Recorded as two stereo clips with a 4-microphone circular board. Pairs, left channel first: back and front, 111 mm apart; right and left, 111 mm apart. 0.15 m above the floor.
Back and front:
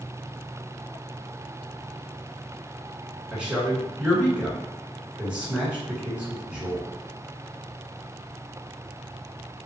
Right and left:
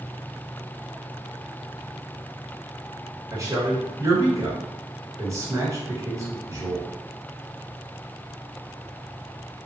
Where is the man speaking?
70° left, 1.6 m.